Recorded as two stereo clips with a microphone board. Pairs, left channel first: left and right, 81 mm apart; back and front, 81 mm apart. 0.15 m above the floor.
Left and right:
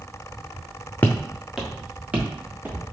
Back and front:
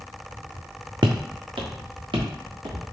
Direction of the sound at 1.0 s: 25° left.